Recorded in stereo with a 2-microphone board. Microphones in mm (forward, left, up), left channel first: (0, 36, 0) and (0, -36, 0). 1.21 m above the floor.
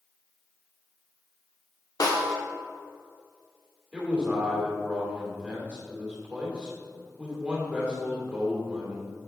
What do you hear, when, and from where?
2.0 s a snare drum: 60° left (ahead or behind), 1.2 m
3.9 s a man speaking: 20° right (ahead or behind), 3 m